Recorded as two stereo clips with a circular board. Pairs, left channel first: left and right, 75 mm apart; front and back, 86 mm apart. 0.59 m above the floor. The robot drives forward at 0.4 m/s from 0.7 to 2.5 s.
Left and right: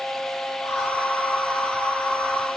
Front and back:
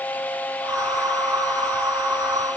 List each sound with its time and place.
Only background noise.